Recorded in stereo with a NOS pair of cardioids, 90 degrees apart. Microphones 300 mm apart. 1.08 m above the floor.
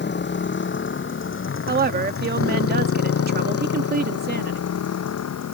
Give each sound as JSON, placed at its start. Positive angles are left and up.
{"t": 0.0, "sound": "a motorcycle", "azimuth_deg": 35}
{"t": 1.7, "sound": "a woman speaking", "azimuth_deg": -35}